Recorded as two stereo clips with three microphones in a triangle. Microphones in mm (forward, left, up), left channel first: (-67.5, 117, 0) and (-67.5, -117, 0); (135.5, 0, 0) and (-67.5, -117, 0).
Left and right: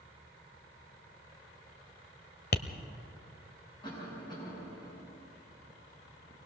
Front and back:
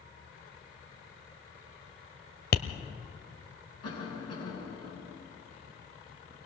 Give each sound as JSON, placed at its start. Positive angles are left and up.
{"t": 2.5, "sound": "tapping", "azimuth_deg": 60, "distance_m": 0.9}
{"t": 3.8, "sound": "a cough", "azimuth_deg": 20, "distance_m": 6.5}